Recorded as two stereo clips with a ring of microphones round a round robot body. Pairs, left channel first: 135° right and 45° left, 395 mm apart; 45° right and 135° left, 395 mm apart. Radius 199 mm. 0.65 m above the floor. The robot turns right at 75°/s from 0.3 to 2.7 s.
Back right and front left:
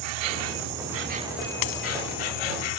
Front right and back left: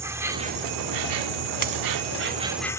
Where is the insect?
50° left; by 2.8 s 130° right.